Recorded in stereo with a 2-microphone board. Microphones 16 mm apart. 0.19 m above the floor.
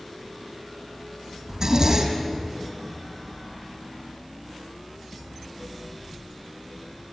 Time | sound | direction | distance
1.5 | a zipper | 30° right (ahead or behind) | 3.5 m